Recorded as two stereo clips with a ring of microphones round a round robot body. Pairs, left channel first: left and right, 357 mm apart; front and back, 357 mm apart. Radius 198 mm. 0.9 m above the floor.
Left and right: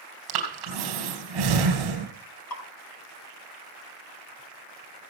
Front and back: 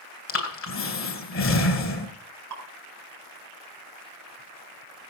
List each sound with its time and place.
0.3 s breathing: 55° right, 4 m
2.5 s dripping: 130° left, 5 m